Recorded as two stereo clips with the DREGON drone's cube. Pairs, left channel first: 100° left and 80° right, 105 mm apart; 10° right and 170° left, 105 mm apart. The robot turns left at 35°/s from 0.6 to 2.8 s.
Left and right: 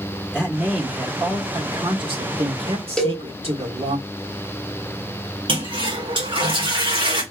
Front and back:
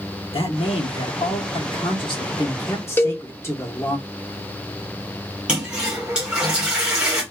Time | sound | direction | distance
0.3 | a man speaking | straight ahead | 1.8 m
3.0 | a cowbell | 25° left | 0.8 m
5.5 | a toilet flushing | 110° right | 1.9 m